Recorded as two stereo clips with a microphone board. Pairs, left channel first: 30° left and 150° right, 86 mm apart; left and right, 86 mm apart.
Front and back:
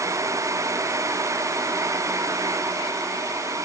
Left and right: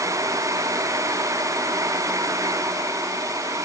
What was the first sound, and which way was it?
Only background noise.